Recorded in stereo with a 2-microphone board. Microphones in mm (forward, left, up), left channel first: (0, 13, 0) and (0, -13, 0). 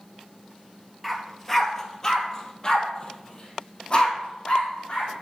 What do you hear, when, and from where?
1.0 s a dog barking: centre (ahead or behind), 1.4 m; by 5.1 s 35° left (ahead or behind), 3.5 m